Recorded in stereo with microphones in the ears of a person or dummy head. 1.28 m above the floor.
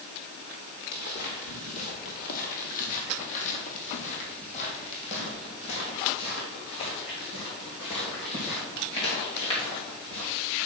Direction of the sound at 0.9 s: 45° left (ahead or behind).